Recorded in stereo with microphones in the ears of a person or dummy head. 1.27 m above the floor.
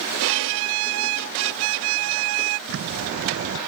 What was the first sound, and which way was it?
A violin, 80° right.